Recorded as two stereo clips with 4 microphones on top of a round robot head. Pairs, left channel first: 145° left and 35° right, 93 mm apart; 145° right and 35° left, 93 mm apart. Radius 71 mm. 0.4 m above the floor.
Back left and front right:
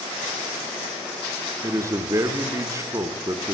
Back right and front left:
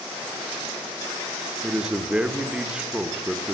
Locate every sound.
1.6 s a man speaking: 35° right, 1.2 m